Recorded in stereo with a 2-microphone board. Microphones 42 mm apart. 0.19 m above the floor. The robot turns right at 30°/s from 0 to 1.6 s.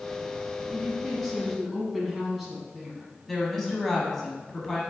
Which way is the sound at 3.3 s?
5° left (ahead or behind).